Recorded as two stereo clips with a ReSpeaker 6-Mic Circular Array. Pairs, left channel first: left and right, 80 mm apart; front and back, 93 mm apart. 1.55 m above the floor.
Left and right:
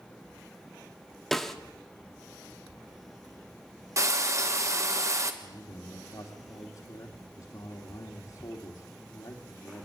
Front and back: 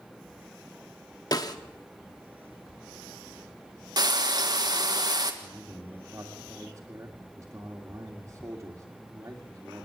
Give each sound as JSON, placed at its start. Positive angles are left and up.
{"t": 1.3, "sound": "a snare drum", "azimuth_deg": 5, "distance_m": 1.3}
{"t": 4.0, "sound": "frying", "azimuth_deg": -135, "distance_m": 1.7}
{"t": 5.4, "sound": "a man speaking", "azimuth_deg": 120, "distance_m": 2.5}